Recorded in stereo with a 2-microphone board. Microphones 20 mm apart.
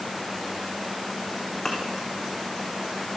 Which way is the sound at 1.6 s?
25° left (ahead or behind).